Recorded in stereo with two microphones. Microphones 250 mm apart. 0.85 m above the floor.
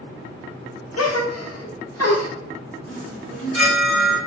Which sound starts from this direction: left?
A gasp, at 1.0 s.